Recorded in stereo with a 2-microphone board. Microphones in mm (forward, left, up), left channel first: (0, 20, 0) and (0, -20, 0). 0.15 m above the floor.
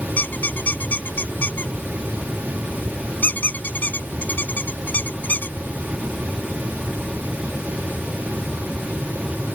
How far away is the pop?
No pop in this recording.